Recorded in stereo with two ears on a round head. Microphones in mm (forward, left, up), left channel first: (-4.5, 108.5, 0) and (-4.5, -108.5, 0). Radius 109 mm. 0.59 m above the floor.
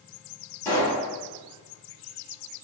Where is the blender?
I don't hear a blender.